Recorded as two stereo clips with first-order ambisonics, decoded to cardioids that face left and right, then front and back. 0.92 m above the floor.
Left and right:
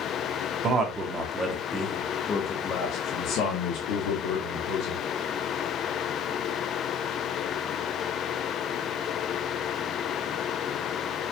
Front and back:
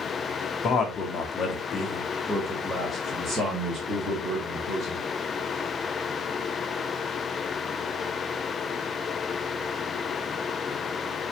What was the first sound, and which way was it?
A man speaking, 45° right.